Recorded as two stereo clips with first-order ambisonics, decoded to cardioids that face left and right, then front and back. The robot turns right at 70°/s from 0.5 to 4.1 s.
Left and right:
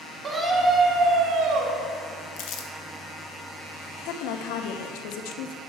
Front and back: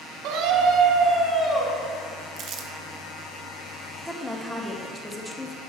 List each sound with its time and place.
0.2 s a scream: 160° right, 1.7 m; by 1.8 s 70° right, 1.7 m
2.4 s crumpling: 120° left, 0.7 m; by 2.7 s 145° left, 0.7 m
4.0 s a woman speaking: 85° left, 0.8 m; by 5.6 s 90° left, 0.8 m